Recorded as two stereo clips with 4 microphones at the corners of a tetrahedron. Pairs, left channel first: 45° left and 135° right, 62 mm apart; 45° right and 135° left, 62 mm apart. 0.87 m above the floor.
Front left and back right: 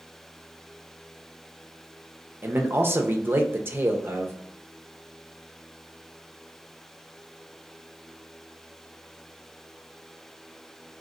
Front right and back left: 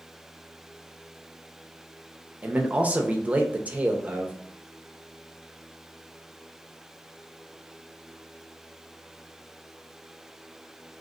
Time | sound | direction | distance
2.4 | a man speaking | 170° right | 0.6 m